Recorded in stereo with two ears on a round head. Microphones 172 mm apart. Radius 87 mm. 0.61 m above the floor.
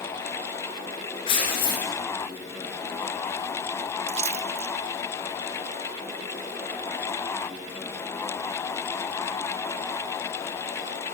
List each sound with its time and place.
1.3 s tearing paper: 25° left (ahead or behind), 5 m
4.1 s a splash: 35° right (ahead or behind), 0.9 m